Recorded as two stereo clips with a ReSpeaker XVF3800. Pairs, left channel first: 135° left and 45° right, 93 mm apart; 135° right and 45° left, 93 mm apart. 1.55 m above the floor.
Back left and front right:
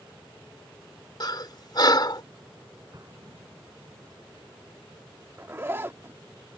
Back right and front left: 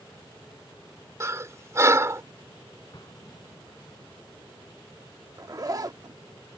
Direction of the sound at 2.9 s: 90° right.